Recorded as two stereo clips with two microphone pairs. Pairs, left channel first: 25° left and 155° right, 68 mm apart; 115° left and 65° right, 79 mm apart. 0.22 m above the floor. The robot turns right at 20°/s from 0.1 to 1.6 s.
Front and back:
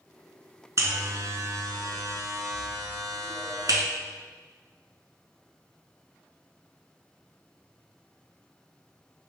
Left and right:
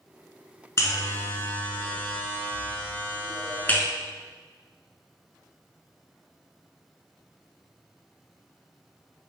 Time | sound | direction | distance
0.8 | a buzzer | 165° left | 0.6 m